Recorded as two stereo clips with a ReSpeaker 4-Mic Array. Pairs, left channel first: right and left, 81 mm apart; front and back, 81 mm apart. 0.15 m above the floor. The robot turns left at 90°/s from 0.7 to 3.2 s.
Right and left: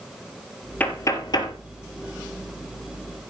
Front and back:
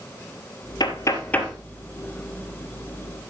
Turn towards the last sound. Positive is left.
turn(degrees=125)